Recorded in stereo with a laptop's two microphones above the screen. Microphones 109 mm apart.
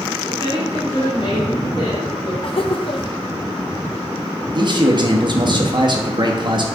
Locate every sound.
0.3 s a woman speaking: 45° left (ahead or behind), 3 m; by 2.3 s 65° left (ahead or behind), 2.5 m
2.4 s laughter: 55° left (ahead or behind), 0.8 m
4.5 s a man speaking: 45° right (ahead or behind), 1.0 m